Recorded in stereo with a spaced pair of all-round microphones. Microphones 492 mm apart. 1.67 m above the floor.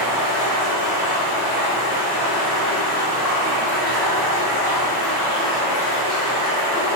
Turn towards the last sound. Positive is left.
turn(degrees=-20)  # may be behind; listen again after turning